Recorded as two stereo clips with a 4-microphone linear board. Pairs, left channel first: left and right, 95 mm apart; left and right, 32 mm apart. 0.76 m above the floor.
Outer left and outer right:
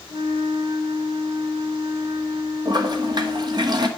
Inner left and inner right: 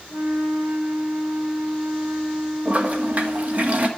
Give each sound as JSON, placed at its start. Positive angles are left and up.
{"t": 0.1, "sound": "a flute", "side_deg": -70, "distance_m": 2.5}
{"t": 2.6, "sound": "a toilet flushing", "side_deg": -45, "distance_m": 1.3}